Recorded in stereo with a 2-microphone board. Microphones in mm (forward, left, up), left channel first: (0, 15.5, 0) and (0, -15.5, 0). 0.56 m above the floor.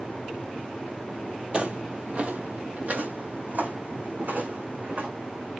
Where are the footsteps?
40° right (ahead or behind), 0.9 m; by 5.1 s 75° right (ahead or behind), 2.5 m.